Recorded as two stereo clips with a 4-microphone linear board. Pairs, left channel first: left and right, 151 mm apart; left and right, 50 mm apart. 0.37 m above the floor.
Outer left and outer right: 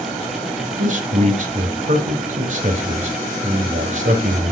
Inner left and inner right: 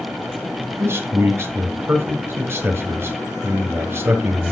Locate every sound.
0.8 s a man speaking: 55° right (ahead or behind), 1.6 m